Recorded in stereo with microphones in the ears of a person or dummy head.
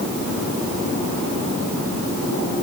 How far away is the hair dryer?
No hair dryer in this recording.